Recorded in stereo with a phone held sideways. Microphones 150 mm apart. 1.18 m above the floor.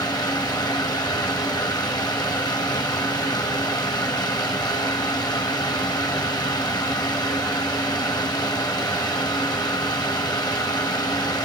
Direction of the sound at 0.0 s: 25° left (ahead or behind).